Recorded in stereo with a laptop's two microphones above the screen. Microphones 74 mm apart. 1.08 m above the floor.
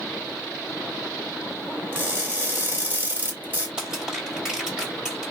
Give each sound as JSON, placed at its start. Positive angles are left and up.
{"t": 1.9, "sound": "crushing", "side_deg": -25, "distance_m": 1.9}
{"t": 3.8, "sound": "crushing", "side_deg": -10, "distance_m": 2.0}